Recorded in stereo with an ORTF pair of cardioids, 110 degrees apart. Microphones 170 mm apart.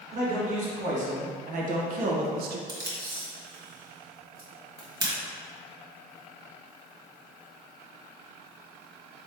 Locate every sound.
0.1 s a man speaking: 40° right, 1.8 m; by 2.6 s 70° right, 0.6 m
2.7 s tape being pulled: 25° right, 1.6 m